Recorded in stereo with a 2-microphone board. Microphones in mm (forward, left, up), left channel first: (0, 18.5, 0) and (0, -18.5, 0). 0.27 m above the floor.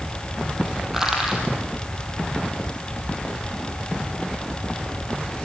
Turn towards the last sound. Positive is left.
turn(degrees=-10)  # may be behind; listen again after turning